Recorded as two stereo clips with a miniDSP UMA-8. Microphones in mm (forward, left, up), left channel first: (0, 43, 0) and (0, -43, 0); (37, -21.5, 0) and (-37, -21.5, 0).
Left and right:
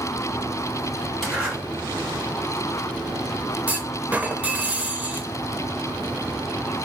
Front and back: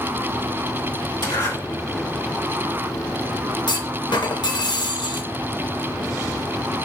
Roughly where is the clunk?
Ahead.